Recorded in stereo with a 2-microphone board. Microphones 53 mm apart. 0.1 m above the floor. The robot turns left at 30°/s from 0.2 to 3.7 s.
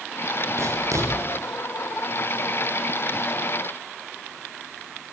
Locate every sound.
0.6 s writing: 65° right (ahead or behind), 8 m; by 1.1 s 80° right, 8 m